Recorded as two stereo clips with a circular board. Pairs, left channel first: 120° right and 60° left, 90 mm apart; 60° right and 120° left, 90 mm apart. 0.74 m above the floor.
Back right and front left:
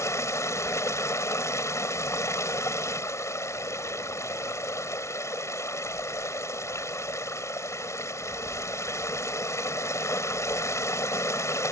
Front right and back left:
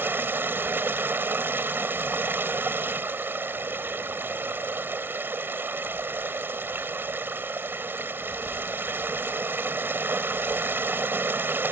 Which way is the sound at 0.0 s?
175° right.